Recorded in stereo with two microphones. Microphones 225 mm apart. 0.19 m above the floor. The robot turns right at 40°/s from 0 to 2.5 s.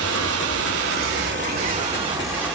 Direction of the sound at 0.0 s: 105° right.